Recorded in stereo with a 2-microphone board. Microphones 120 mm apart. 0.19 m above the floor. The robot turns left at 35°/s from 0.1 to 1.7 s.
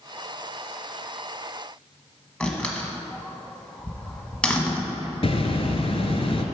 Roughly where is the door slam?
Centre.